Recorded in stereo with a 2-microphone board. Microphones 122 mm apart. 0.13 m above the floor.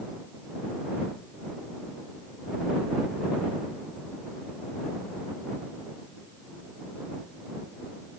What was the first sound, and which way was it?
Only background noise.